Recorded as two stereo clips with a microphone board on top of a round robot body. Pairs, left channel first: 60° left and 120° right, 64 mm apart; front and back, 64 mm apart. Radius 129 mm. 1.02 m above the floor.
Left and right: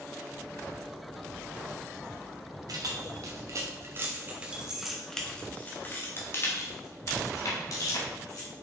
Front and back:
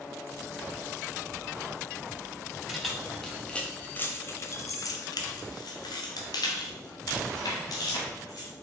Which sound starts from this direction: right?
Keys jangling, at 2.7 s.